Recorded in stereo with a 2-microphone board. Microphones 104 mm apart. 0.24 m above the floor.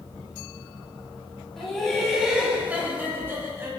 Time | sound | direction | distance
1.6 | laughter | 5° left (ahead or behind) | 1.9 m